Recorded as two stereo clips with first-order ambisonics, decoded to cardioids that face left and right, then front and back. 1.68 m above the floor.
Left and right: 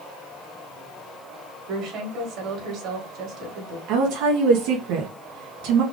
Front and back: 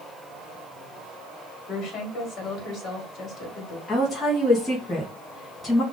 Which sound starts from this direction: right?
A woman speaking, at 3.9 s.